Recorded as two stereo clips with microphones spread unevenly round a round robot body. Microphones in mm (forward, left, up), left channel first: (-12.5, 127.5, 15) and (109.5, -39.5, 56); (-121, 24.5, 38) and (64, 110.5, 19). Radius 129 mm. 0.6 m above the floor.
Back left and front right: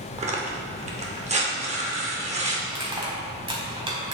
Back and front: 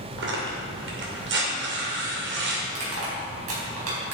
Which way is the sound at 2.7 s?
15° left.